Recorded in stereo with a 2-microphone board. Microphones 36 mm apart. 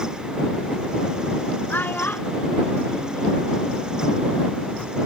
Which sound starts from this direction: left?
A child speaking, at 1.7 s.